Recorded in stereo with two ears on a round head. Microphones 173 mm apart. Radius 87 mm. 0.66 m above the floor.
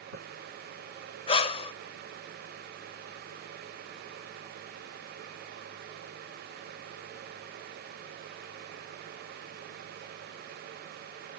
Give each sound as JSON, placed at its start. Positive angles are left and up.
{"t": 1.3, "sound": "breathing", "side_deg": 30, "distance_m": 0.7}